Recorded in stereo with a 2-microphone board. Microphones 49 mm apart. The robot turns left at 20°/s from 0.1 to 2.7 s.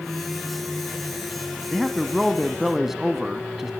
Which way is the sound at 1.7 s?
Centre (ahead or behind).